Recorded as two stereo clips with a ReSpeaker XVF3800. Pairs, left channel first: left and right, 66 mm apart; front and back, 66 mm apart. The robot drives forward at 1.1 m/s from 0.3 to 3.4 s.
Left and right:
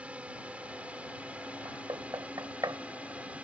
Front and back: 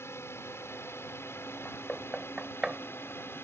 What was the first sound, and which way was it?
A drone, 25° right.